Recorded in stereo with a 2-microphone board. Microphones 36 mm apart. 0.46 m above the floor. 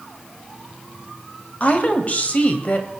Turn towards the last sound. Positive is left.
turn(degrees=40)  # may be behind; listen again after turning